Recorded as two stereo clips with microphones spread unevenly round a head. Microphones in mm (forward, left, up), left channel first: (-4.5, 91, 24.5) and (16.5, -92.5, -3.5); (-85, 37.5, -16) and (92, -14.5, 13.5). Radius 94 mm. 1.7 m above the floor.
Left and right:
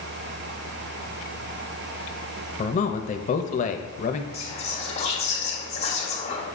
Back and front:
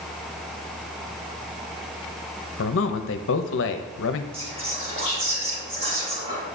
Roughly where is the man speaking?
Behind left.